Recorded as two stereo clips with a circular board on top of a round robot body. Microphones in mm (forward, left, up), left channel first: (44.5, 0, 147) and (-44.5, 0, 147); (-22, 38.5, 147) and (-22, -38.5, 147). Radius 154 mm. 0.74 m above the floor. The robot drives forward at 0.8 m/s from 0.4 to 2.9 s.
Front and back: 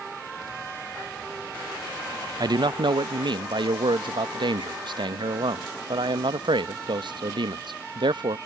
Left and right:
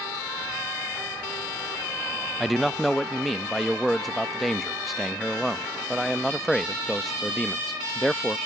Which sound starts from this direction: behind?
A man speaking, at 2.4 s.